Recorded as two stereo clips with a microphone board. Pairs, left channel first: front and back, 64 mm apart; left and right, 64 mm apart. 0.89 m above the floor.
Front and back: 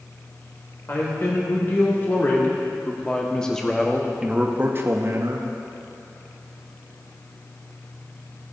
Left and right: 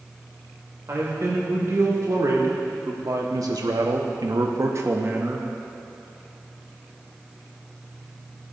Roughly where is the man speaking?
Ahead right.